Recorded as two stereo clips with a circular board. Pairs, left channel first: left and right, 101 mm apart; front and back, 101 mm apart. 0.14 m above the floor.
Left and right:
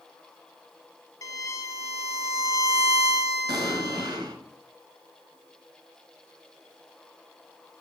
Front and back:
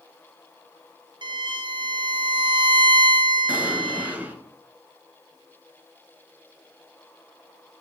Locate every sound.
1.2 s a violin: 145° left, 0.5 m
3.5 s an explosion: 115° right, 0.7 m